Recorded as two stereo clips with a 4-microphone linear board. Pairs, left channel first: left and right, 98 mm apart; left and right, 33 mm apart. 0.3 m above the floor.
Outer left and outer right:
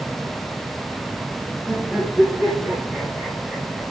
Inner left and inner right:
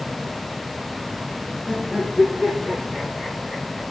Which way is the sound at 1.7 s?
Centre (ahead or behind).